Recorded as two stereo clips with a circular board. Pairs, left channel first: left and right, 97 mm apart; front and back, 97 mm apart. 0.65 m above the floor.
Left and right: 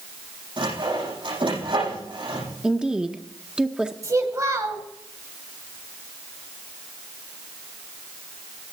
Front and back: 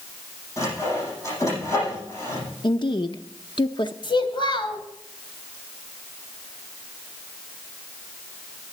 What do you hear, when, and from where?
0.6 s sawing: 60° right, 8 m
2.6 s a woman speaking: 10° right, 0.8 m
4.0 s a child speaking: 35° right, 3 m